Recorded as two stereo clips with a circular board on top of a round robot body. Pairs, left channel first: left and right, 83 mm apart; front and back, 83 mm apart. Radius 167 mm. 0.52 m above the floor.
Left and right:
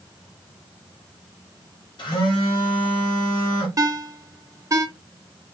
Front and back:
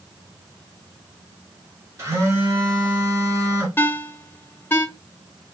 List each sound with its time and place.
2.0 s a phone buzzing: 125° left, 1.3 m
3.8 s a ringtone: 55° right, 0.8 m